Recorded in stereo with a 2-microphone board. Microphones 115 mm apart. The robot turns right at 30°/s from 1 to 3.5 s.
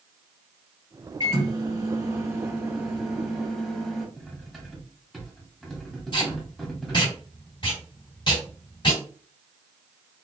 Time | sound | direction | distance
1.2 | a microwave | 60° right | 1.8 m
4.2 | cutlery clinking | centre (ahead or behind) | 1.0 m
6.1 | tape being pulled | 40° left (ahead or behind) | 2 m